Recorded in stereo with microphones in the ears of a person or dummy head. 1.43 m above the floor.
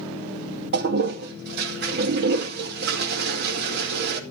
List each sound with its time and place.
0.7 s a toilet flushing: 55° right (ahead or behind), 2 m